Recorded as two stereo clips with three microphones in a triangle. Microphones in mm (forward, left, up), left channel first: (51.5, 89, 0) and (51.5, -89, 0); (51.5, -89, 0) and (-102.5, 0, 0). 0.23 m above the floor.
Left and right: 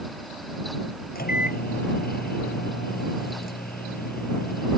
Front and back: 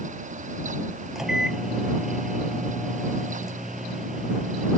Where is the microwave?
60° left.